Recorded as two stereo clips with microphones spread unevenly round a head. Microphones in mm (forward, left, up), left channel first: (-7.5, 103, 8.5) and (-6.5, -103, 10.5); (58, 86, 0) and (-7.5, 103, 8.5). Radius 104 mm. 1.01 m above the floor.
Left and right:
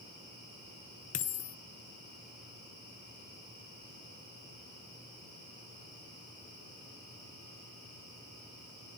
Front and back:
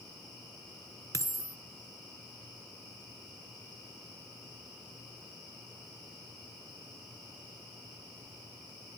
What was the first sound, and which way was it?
A dropped coin, 145° left.